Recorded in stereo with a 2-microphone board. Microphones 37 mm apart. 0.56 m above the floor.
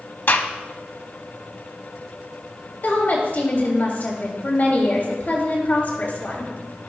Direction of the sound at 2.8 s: 50° left (ahead or behind).